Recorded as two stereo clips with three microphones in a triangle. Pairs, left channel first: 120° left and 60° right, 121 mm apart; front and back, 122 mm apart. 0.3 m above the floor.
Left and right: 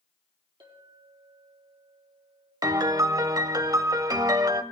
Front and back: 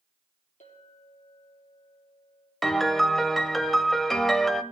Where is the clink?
5° right, 4.5 m.